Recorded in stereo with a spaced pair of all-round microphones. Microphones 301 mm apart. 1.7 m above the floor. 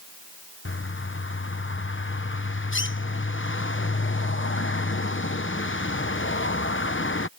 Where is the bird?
40° left (ahead or behind).